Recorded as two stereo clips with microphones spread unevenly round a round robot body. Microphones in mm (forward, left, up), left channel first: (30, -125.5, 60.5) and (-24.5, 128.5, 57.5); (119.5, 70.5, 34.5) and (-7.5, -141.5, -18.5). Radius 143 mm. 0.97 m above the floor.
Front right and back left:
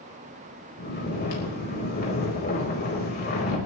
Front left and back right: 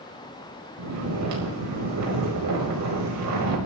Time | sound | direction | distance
0.8 | snoring | 135° right | 5 m